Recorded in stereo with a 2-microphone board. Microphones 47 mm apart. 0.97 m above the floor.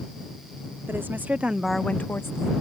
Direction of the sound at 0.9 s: 50° right (ahead or behind).